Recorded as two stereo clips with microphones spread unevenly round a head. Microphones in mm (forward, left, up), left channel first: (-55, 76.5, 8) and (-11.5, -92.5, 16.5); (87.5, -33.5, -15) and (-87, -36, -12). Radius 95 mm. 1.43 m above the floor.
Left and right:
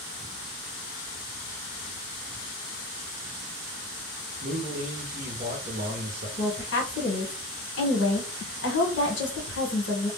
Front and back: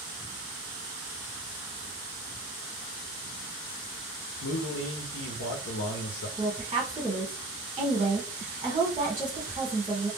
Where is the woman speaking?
110° left, 1.2 m.